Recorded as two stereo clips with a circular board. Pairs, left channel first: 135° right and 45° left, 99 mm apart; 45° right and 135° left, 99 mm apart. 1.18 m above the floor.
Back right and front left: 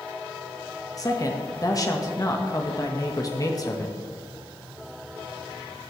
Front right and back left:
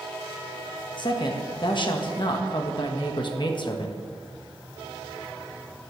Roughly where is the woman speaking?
Right.